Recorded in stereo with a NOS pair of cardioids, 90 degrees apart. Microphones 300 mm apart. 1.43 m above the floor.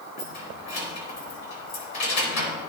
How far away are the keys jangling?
About 4 m.